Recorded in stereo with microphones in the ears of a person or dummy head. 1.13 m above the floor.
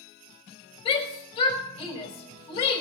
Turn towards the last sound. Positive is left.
turn(degrees=30)  # may be behind; listen again after turning